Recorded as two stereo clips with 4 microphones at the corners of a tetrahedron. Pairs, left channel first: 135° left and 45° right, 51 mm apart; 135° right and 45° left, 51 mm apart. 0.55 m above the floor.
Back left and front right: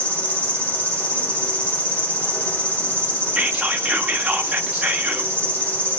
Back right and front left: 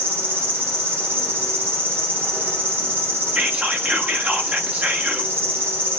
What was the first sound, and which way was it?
An insect, 80° left.